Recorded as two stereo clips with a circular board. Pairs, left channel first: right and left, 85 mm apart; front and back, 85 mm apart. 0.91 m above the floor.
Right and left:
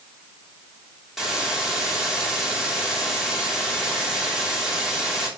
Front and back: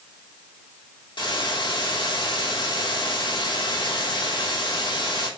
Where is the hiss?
5° left, 3 m.